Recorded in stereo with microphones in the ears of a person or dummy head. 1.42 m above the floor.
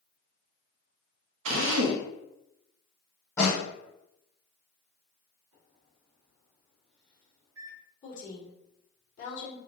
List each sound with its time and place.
1.4 s a drill: 85° right, 0.7 m
3.4 s a snare drum: 15° left (ahead or behind), 1.8 m
5.5 s a microwave: 75° right (ahead or behind), 1.6 m
8.0 s a woman speaking: 45° left (ahead or behind), 1.8 m